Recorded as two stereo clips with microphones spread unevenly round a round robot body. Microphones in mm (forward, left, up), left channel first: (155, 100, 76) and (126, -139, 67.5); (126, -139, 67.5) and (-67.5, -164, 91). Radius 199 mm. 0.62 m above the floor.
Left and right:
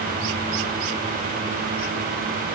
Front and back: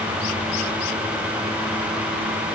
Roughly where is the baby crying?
I don't hear a baby crying.